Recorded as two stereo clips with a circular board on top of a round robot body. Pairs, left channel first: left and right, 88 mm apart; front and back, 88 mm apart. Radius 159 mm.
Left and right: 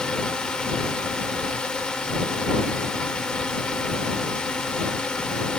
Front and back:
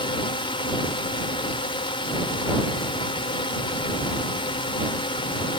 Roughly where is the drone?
Ahead.